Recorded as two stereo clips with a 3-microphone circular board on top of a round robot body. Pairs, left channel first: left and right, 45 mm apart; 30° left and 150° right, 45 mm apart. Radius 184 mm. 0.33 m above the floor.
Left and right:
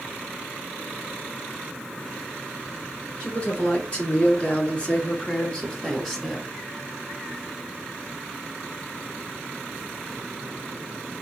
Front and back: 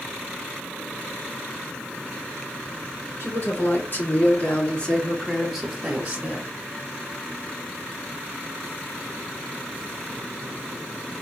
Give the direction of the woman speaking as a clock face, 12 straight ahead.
11 o'clock.